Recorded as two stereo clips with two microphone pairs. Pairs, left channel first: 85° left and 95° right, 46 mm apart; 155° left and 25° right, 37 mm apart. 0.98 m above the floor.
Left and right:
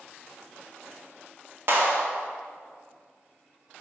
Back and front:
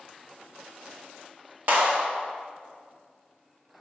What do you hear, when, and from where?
1.7 s a clap: 55° right, 1.4 m